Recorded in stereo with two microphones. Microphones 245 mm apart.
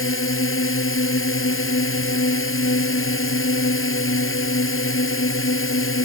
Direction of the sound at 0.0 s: 55° left (ahead or behind).